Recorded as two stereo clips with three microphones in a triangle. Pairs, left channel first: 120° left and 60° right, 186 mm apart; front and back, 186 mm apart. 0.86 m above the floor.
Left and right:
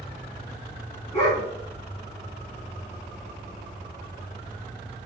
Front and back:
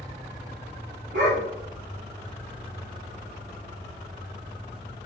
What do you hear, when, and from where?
1.1 s a dog barking: 175° right, 4 m